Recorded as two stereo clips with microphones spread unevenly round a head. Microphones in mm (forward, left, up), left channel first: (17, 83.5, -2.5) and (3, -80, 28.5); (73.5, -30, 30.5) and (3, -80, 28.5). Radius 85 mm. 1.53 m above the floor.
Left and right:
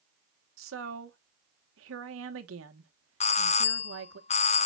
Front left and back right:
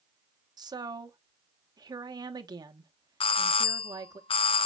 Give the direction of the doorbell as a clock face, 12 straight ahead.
11 o'clock.